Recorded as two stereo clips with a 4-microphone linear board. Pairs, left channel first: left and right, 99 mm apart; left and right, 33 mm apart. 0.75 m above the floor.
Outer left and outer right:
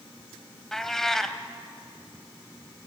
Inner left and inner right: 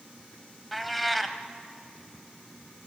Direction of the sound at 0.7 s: 5° left (ahead or behind).